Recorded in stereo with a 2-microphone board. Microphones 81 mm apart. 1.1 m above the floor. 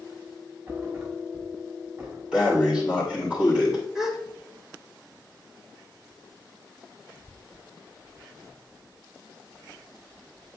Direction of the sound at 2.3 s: 15° right (ahead or behind).